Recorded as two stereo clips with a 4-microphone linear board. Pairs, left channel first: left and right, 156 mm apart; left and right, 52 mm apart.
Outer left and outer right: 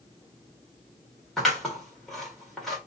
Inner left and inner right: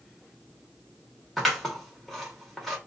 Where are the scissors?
Centre (ahead or behind), 1.5 m.